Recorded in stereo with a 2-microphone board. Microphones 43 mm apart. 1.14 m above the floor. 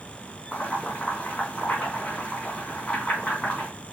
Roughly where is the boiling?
Left.